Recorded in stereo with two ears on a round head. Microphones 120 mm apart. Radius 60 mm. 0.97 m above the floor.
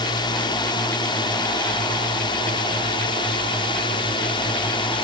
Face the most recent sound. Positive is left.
turn(degrees=35)  # may be behind; listen again after turning